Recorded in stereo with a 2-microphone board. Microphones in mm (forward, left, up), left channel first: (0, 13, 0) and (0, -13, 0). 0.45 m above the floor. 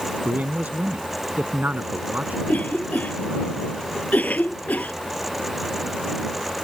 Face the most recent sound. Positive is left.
turn(degrees=80)